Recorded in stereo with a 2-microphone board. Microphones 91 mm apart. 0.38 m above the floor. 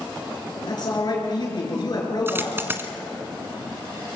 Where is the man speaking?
50° left (ahead or behind), 5.5 m.